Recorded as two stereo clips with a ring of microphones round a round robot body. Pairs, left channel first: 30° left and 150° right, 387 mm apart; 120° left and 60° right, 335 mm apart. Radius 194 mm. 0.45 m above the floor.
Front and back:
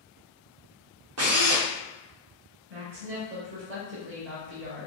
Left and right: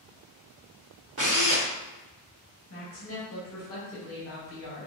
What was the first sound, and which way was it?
A drill, 105° right.